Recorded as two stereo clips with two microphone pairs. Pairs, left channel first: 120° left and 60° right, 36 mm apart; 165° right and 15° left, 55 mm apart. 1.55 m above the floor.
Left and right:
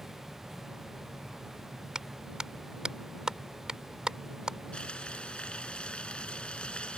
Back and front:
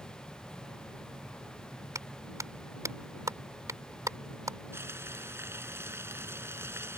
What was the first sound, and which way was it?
A clap, 10° left.